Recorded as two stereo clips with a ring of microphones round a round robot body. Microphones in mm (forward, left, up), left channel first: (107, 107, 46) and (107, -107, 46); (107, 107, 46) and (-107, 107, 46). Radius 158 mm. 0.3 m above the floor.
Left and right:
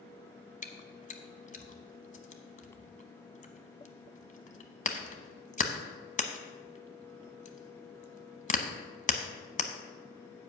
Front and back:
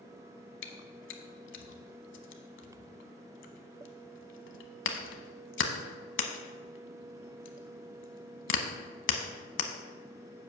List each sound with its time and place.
0.6 s chewing: 35° left, 1.0 m